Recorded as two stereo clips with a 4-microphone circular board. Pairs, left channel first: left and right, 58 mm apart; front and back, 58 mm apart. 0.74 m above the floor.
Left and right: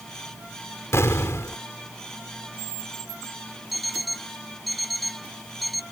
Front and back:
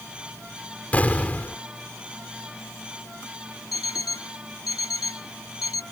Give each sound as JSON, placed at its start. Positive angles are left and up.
{"t": 0.9, "sound": "an explosion", "azimuth_deg": 60}
{"t": 3.7, "sound": "an alarm clock", "azimuth_deg": 0}